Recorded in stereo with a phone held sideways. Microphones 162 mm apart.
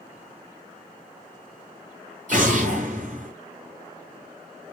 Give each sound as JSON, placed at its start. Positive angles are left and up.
{"t": 2.3, "sound": "an explosion", "side_deg": -55, "distance_m": 1.7}